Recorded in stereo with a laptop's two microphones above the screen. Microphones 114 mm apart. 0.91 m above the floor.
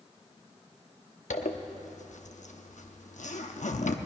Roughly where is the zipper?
Left.